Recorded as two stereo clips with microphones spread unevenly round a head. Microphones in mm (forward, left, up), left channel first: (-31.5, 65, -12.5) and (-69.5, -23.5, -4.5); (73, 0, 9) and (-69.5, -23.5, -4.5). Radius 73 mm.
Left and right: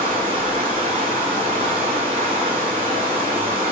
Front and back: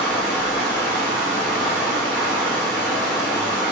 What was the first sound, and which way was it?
Running water, 85° right.